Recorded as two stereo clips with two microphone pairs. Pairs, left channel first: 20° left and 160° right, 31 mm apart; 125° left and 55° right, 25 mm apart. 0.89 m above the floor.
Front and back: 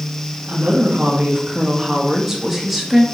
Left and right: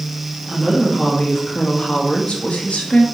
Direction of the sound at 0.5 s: 175° right.